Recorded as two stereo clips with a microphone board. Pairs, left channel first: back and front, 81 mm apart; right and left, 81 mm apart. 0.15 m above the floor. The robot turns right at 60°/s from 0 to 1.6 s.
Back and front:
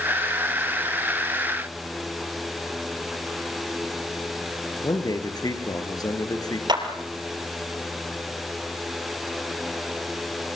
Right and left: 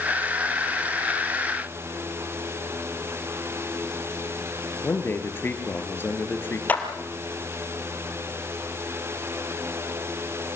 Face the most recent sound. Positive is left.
turn(degrees=-20)